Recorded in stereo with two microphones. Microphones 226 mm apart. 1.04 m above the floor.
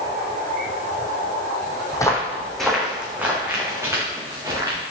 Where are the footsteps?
15° left (ahead or behind), 2 m; by 4.8 s 15° right (ahead or behind), 5.5 m.